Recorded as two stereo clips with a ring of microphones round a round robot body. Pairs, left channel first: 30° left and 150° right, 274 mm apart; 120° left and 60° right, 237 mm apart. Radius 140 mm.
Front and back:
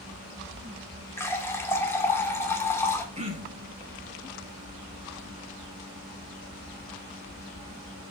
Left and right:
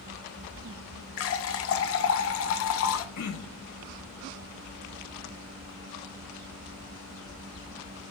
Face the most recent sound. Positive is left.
turn(degrees=145)